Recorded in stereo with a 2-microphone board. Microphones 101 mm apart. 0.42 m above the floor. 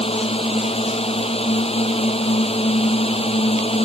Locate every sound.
0.0 s a drone: 75° left (ahead or behind)